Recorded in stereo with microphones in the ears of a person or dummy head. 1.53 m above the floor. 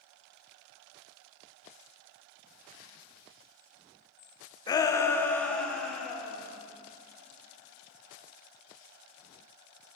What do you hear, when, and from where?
4.7 s a shout: 25° left (ahead or behind), 0.8 m; by 6.5 s 5° left (ahead or behind), 1.9 m